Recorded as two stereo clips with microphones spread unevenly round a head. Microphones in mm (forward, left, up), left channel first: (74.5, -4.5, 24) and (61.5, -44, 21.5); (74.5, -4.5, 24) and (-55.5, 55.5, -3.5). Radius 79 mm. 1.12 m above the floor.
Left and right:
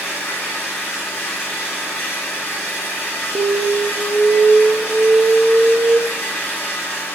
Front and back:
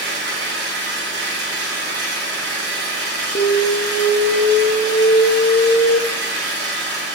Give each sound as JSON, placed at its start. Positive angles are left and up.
{"t": 0.0, "sound": "an engine running", "azimuth_deg": 155, "distance_m": 2.5}
{"t": 3.4, "sound": "an alarm", "azimuth_deg": -70, "distance_m": 0.8}